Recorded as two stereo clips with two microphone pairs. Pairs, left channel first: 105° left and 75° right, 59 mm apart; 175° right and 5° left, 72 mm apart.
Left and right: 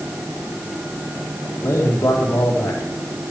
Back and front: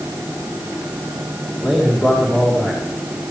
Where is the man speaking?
80° left, 3.5 m.